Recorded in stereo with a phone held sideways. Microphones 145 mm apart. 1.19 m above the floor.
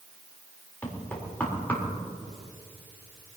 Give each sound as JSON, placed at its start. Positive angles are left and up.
{"t": 0.8, "sound": "knocking", "side_deg": 10, "distance_m": 4.0}